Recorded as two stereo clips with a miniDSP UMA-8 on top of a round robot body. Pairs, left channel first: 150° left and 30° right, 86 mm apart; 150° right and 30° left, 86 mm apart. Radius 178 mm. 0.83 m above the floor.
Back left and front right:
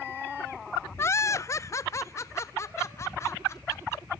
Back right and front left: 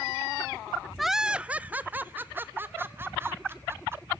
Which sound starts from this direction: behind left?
Laughter, at 1.0 s.